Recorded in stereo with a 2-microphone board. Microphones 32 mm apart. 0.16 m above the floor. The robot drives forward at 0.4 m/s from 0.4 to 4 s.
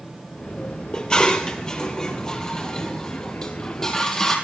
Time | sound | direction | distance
0.9 | dishes clattering | 25° left (ahead or behind) | 2 m